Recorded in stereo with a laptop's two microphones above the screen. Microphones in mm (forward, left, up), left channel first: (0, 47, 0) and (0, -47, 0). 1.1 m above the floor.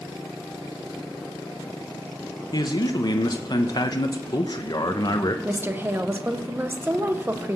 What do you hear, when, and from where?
2.5 s a man speaking: 45° left (ahead or behind), 0.7 m
5.5 s a woman speaking: 25° right (ahead or behind), 0.8 m